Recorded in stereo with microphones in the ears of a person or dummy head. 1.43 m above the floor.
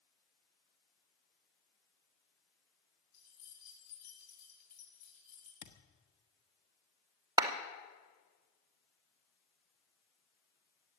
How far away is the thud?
About 1.2 m.